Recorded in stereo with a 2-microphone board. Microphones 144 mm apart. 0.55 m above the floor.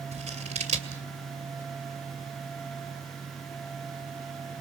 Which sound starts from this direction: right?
Scissors, at 0.1 s.